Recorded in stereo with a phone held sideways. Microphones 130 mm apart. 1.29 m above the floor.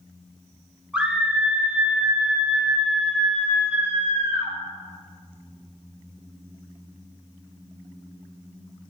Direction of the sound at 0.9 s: 10° right (ahead or behind).